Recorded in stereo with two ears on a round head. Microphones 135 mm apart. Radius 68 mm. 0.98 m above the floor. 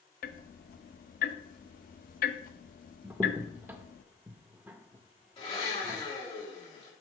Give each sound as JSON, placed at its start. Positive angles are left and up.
{"t": 0.2, "sound": "ticking", "side_deg": 55, "distance_m": 0.5}
{"t": 3.0, "sound": "a crack", "side_deg": -15, "distance_m": 0.6}
{"t": 5.4, "sound": "a blender", "side_deg": 35, "distance_m": 3.0}